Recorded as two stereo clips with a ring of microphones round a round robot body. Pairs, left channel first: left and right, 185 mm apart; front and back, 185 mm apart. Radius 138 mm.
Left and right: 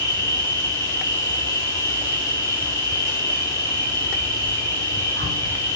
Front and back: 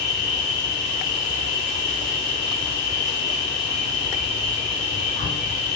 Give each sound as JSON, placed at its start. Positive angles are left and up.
{"t": 0.0, "sound": "an insect", "azimuth_deg": -130, "distance_m": 3.5}